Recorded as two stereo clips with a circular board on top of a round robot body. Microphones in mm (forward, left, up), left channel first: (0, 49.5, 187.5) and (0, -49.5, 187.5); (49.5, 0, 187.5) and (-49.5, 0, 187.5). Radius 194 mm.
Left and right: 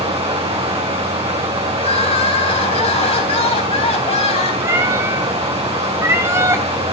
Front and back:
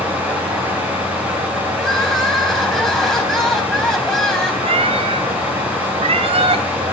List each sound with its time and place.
0.0 s running water: 105° right, 7.5 m
1.8 s crying: 85° left, 3.5 m
4.6 s a cat meowing: 155° right, 0.7 m